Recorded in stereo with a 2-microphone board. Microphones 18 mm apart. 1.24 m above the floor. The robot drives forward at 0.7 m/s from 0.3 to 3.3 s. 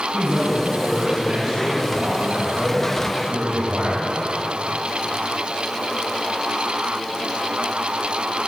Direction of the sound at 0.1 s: 70° right (ahead or behind).